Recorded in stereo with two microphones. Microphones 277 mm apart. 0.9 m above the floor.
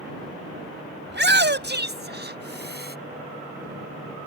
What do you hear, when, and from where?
1.1 s a shout: 40° right (ahead or behind); by 3.0 s 35° right (ahead or behind)